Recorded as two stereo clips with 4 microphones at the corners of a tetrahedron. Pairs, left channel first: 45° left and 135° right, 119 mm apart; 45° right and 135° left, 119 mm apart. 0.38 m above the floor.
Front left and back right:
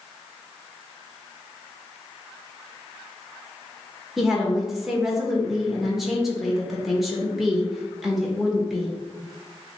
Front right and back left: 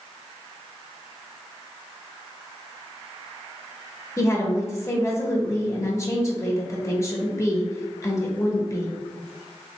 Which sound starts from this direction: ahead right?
A woman speaking, at 4.2 s.